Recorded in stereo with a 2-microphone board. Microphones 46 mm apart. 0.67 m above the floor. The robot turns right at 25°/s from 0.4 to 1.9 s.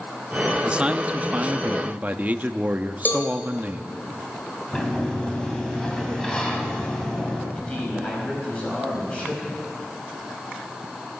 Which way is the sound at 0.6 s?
140° right.